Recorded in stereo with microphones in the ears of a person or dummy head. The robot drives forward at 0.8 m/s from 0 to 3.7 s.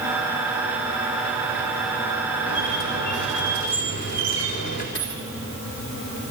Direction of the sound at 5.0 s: 60° left (ahead or behind).